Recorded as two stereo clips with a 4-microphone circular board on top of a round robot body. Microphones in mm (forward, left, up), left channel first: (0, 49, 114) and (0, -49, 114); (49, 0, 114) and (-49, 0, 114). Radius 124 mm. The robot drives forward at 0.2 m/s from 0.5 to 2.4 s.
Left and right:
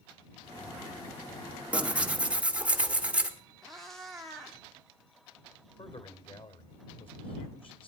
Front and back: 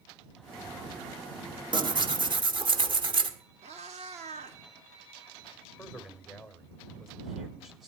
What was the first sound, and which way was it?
Tearing paper, 165° right.